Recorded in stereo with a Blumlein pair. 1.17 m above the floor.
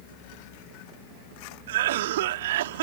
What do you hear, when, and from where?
1.7 s a cough: 55° right